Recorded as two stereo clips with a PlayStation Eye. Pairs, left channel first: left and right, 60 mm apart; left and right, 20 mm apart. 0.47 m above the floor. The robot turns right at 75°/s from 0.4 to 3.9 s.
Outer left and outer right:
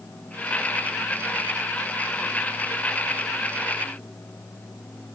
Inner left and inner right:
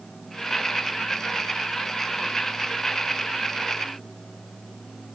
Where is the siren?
I don't hear a siren.